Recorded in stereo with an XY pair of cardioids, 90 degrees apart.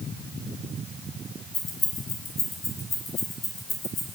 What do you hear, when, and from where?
1.5 s keys jangling: 60° left, 5.5 m; by 4.1 s 75° left, 6.5 m